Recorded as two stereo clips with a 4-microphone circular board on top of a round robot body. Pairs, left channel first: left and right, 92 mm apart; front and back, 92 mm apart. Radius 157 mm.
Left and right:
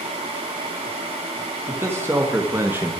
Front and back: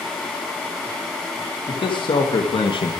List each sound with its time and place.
1.7 s a man speaking: 25° right, 2.5 m